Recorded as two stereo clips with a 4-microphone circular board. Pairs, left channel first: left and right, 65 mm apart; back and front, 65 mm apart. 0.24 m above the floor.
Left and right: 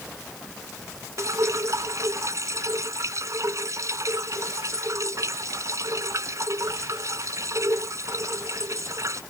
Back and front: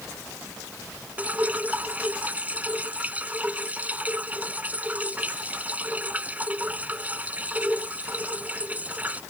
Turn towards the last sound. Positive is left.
turn(degrees=-65)